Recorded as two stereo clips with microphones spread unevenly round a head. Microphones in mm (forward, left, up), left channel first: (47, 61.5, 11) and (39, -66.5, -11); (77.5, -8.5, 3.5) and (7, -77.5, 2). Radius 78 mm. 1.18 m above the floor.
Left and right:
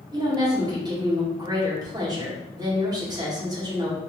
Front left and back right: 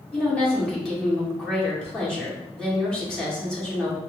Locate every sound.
0.1 s a woman speaking: 35° right, 2.0 m